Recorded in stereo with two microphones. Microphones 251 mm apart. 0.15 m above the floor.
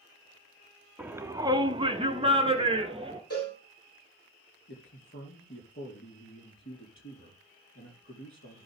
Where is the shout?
5° right (ahead or behind), 1.1 m; by 3.2 s 20° right (ahead or behind), 2 m.